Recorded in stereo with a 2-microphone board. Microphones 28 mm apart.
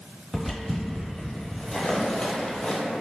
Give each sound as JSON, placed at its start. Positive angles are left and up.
{"t": 0.3, "sound": "footsteps", "side_deg": -15, "distance_m": 1.2}